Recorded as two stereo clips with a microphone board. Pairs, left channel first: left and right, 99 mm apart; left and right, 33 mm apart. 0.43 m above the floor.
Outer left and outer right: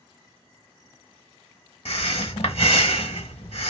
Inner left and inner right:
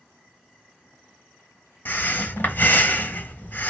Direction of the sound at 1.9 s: 75° left (ahead or behind).